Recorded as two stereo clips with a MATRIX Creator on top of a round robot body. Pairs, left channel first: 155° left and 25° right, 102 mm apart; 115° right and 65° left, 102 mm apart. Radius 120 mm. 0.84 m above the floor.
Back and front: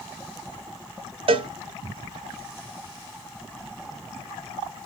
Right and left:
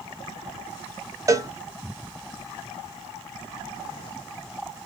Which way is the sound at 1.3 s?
10° left.